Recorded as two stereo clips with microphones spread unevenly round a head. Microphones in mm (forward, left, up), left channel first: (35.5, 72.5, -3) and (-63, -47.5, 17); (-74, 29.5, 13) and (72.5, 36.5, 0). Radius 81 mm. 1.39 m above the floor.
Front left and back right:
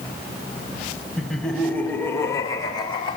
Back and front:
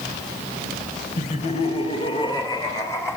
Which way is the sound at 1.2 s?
140° left.